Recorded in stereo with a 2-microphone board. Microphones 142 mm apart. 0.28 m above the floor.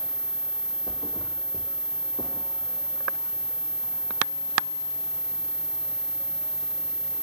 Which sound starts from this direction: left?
A thud, at 0.9 s.